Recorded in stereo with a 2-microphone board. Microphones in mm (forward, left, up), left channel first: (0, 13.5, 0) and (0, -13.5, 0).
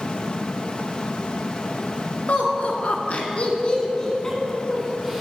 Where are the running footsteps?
I don't hear running footsteps.